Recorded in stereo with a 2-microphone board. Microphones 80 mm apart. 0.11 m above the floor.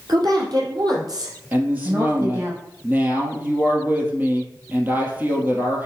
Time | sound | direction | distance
0.1 | a woman speaking | 65° right (ahead or behind) | 3 m
1.5 | a woman speaking | 25° right (ahead or behind) | 2.5 m